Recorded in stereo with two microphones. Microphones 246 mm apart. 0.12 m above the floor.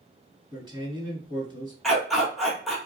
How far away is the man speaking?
About 1.5 m.